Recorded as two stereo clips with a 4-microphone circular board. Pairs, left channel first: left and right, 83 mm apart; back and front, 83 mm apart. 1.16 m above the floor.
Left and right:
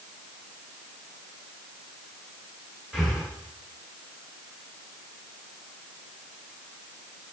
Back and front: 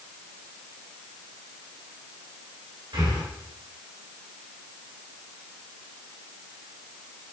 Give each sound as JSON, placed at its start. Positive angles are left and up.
{"t": 2.9, "sound": "breathing", "azimuth_deg": -10, "distance_m": 1.7}